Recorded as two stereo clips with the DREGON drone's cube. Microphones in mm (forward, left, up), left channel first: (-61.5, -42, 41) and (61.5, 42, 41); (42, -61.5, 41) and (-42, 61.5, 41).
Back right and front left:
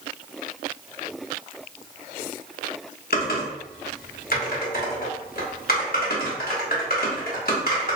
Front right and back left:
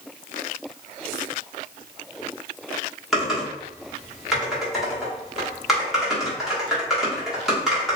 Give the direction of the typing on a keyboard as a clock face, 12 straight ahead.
5 o'clock.